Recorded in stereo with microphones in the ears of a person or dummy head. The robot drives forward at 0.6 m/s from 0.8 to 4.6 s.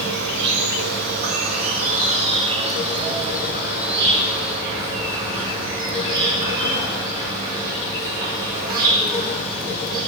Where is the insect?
65° right (ahead or behind), 0.9 m; by 10.1 s 20° right (ahead or behind), 2.5 m.